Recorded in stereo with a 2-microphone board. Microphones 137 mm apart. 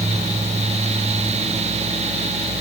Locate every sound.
Only background noise.